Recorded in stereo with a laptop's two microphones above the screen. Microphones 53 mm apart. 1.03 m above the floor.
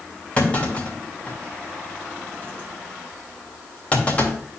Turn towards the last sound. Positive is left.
turn(degrees=25)  # may be behind; listen again after turning